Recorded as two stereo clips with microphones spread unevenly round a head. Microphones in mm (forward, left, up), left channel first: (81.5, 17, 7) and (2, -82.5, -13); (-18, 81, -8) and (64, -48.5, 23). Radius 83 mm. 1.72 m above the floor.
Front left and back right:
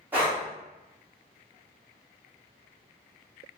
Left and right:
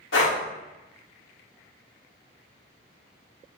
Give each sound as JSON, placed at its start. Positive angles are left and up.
{"t": 0.1, "sound": "breathing", "azimuth_deg": 150, "distance_m": 1.0}